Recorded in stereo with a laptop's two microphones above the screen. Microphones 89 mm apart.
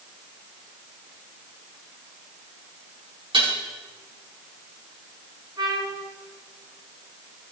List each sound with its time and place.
3.3 s dishes clattering: 75° right (ahead or behind), 5 m
5.6 s a trumpet: 50° right (ahead or behind), 4 m